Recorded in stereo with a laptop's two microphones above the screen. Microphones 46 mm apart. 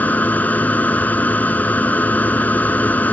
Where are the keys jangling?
No keys jangling in this recording.